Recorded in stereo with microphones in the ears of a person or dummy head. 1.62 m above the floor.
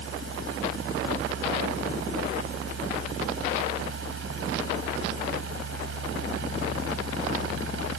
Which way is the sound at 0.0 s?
80° right.